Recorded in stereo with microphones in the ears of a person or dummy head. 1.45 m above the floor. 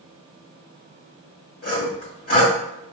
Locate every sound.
1.6 s sawing: 45° left (ahead or behind), 1.8 m